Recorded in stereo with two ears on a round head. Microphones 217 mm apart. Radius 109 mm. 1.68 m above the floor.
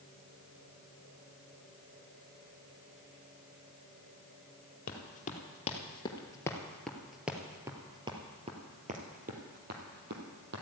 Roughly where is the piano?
No piano in this recording.